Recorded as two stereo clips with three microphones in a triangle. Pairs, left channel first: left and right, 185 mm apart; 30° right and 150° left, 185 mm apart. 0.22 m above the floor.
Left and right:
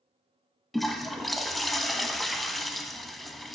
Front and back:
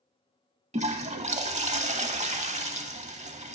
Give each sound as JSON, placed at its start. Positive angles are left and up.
{"t": 0.7, "sound": "a toilet flushing", "azimuth_deg": 180, "distance_m": 0.6}